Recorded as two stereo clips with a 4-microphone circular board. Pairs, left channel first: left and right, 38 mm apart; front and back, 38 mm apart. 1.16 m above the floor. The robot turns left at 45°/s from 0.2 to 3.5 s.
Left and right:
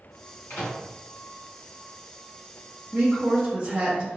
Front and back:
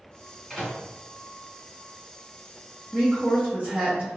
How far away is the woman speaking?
About 0.9 m.